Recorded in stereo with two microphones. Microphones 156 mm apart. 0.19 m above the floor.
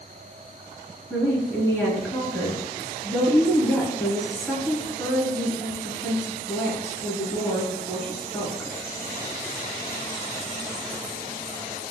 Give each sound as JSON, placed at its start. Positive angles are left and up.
{"t": 1.1, "sound": "a woman speaking", "side_deg": 15, "distance_m": 2.5}